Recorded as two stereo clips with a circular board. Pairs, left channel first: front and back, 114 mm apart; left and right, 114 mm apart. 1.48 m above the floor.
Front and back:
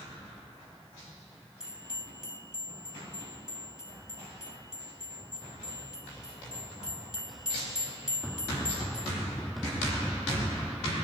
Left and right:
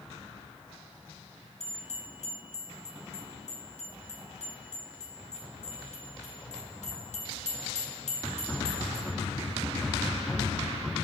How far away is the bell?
About 4 m.